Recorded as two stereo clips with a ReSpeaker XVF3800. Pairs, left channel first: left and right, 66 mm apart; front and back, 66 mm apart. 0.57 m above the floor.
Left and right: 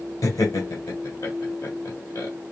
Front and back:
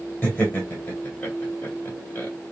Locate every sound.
0.2 s laughter: 65° left, 2 m